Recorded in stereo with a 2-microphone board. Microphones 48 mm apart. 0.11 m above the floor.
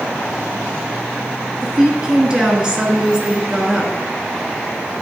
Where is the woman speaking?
15° right (ahead or behind), 1.1 m.